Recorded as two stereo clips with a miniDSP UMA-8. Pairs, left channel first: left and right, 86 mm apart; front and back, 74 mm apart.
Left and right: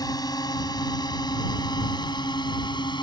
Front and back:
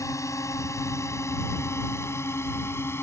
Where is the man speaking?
I don't hear a man speaking.